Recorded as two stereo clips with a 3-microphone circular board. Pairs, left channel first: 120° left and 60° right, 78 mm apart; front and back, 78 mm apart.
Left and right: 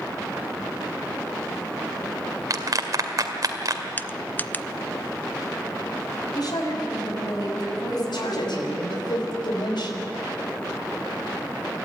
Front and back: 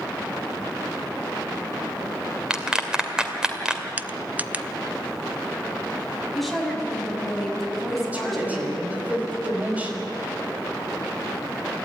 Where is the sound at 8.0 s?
110° left, 5 m.